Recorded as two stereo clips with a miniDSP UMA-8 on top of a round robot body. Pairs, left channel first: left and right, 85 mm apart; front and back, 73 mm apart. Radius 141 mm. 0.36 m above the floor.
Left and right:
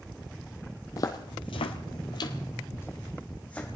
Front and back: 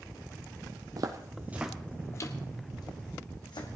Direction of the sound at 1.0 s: 140° left.